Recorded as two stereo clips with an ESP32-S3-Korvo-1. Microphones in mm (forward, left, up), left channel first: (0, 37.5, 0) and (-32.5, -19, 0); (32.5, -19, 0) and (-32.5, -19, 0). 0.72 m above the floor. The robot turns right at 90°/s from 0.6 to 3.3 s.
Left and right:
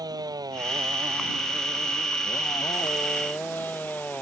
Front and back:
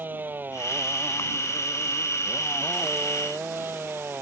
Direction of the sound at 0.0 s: 120° right.